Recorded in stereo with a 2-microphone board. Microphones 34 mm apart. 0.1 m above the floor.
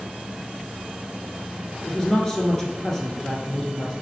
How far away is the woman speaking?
About 1.2 m.